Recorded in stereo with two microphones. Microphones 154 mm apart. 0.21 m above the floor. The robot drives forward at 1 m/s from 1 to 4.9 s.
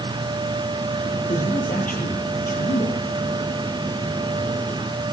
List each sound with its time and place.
1.3 s a man speaking: 60° left (ahead or behind), 5.5 m; by 3.0 s 70° left (ahead or behind), 5 m